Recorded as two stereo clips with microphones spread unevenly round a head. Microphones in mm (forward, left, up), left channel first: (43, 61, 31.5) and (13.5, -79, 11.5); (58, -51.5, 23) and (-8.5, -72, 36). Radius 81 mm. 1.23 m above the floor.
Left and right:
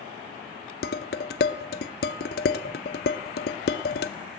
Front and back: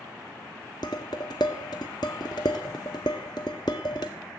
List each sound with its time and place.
0.8 s dishes clattering: 85° left, 0.6 m